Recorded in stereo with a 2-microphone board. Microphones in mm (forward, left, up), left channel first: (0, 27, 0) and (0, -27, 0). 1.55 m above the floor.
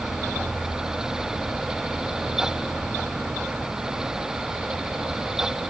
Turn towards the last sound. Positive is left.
No sound to turn to.